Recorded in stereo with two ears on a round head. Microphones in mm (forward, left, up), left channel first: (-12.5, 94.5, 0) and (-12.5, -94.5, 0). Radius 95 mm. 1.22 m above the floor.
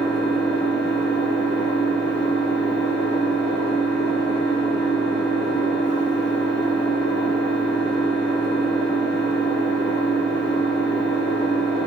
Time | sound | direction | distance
0.0 | an engine running | 55° left (ahead or behind) | 1.2 m